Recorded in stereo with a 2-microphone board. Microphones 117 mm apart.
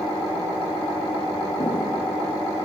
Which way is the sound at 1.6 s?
40° left (ahead or behind).